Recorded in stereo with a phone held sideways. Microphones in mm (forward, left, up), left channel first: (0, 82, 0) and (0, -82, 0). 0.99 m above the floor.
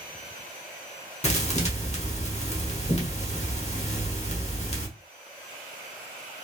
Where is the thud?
40° left (ahead or behind), 1.1 m.